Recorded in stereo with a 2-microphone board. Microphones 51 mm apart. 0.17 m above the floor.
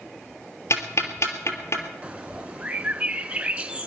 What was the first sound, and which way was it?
Ticking, 65° left (ahead or behind).